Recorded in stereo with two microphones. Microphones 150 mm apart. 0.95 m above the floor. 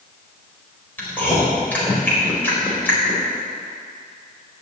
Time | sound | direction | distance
1.0 | chewing | 10° left (ahead or behind) | 4 m